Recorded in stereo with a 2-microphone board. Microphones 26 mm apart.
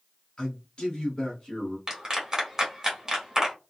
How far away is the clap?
About 1.1 m.